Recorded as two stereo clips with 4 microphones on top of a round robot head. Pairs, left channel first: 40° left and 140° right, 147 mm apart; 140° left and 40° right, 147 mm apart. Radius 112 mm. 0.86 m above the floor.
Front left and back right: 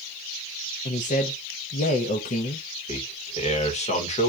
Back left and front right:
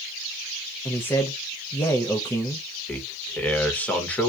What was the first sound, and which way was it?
A man speaking, 65° left.